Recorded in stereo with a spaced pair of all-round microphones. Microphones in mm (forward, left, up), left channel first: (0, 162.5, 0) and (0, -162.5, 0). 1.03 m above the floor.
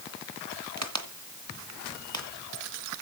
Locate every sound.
0.8 s a crack: 55° right (ahead or behind), 1.8 m